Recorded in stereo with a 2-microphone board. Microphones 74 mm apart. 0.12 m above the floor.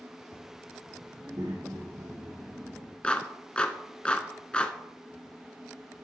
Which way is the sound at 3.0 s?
15° left (ahead or behind).